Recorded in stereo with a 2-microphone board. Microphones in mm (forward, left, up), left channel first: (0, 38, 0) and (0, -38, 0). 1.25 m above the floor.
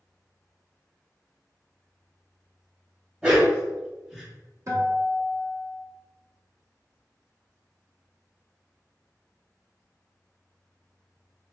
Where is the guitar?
45° right (ahead or behind), 0.9 m.